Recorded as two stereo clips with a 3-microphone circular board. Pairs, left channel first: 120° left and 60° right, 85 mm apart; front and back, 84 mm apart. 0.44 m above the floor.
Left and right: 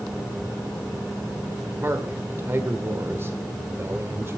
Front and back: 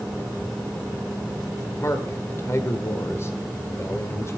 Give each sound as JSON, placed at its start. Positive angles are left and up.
{"t": 1.8, "sound": "a man speaking", "azimuth_deg": -25, "distance_m": 1.7}